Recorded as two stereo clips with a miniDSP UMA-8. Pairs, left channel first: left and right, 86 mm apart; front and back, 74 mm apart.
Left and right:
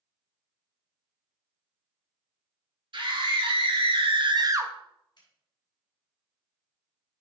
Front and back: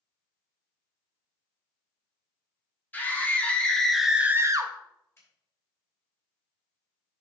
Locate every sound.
2.9 s a scream: 65° right, 2.5 m; by 4.7 s 155° right, 1.0 m
5.2 s a finger snap: 55° left, 4.5 m